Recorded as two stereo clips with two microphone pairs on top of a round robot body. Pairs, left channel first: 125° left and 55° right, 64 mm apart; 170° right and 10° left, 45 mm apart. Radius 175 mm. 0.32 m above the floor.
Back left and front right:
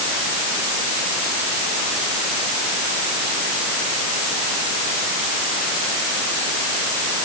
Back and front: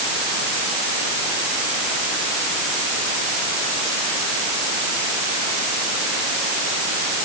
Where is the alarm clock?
I don't hear an alarm clock.